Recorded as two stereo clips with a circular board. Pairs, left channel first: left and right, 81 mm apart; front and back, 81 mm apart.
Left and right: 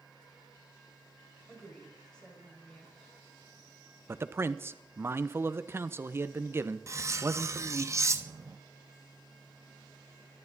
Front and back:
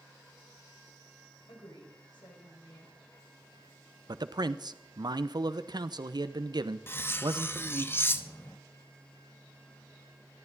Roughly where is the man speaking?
Behind right.